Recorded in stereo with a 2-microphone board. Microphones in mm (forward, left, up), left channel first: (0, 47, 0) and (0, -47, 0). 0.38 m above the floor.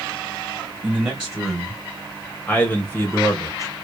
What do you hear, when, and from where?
0.8 s a man speaking: 10° right (ahead or behind), 2.0 m; by 3.7 s 35° left (ahead or behind), 1.7 m